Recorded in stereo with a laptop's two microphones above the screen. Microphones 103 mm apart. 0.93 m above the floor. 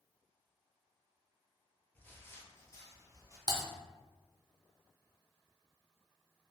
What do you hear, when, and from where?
1.9 s footsteps: 15° left (ahead or behind), 0.9 m; by 3.4 s 30° left (ahead or behind), 1.4 m
3.5 s typing on a keyboard: 40° right (ahead or behind), 0.6 m